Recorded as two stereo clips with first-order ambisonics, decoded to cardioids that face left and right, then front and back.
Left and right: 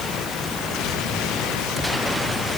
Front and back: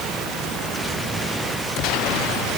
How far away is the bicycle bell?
No bicycle bell in this recording.